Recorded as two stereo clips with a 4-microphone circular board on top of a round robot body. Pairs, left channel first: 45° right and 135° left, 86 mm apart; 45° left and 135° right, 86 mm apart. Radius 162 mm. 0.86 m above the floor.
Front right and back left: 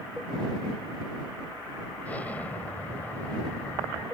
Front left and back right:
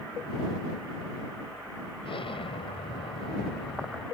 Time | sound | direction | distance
2.0 | an explosion | 30° left | ?